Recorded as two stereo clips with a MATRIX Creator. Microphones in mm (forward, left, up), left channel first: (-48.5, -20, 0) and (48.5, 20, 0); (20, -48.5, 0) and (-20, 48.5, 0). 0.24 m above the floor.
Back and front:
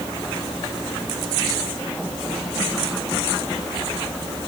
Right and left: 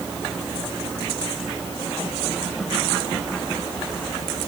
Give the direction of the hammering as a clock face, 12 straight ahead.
I don't hear hammering.